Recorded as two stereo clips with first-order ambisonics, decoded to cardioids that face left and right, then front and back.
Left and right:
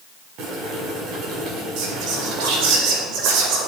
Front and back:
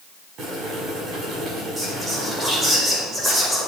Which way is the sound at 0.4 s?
125° right.